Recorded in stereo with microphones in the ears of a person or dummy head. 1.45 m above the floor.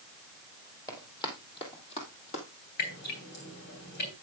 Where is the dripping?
60° left (ahead or behind), 3.5 m.